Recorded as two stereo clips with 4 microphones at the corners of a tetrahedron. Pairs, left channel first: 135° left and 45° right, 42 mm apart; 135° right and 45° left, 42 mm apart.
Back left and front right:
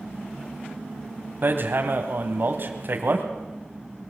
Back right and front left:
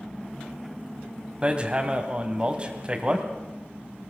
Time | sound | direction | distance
1.4 | hammering | 20° right | 2.0 m